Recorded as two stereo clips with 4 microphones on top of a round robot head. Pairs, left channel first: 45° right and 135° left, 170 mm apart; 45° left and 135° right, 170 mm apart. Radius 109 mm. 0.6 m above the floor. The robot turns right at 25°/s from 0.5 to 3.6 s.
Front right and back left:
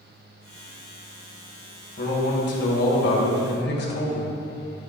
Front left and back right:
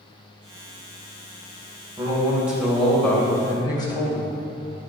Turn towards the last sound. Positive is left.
turn(degrees=-25)